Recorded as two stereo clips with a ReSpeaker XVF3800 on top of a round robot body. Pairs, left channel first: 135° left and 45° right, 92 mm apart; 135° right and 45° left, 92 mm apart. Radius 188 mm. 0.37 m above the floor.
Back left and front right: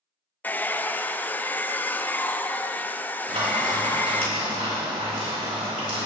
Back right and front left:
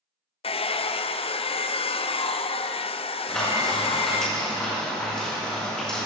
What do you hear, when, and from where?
0.4 s a hair dryer: 150° right, 0.5 m
3.3 s frying: 55° right, 4.5 m